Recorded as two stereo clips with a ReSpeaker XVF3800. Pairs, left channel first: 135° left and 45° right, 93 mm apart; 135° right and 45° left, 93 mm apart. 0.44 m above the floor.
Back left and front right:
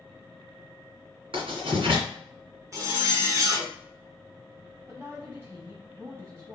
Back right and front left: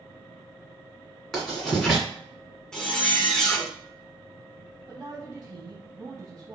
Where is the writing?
50° right, 2.0 m.